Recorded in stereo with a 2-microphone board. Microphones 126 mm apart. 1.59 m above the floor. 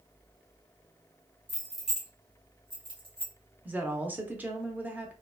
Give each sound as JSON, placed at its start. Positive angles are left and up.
{"t": 1.5, "sound": "keys jangling", "side_deg": 15, "distance_m": 0.8}
{"t": 3.6, "sound": "a woman speaking", "side_deg": -15, "distance_m": 0.6}